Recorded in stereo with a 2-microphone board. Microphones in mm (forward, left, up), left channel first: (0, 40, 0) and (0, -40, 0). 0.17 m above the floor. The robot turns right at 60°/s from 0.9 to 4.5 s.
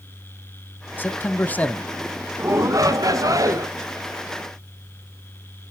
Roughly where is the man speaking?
Left.